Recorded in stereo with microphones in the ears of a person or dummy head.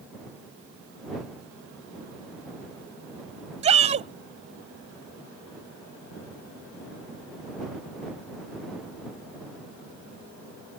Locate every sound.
3.6 s a shout: 35° right (ahead or behind)